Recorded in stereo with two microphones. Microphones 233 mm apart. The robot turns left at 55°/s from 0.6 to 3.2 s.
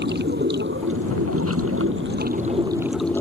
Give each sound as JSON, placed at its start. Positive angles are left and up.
{"t": 0.0, "sound": "running water", "azimuth_deg": -50}